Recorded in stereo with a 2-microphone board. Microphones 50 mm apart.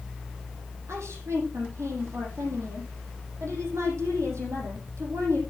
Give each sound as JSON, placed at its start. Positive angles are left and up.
{"t": 0.9, "sound": "a woman speaking", "side_deg": -70, "distance_m": 5.5}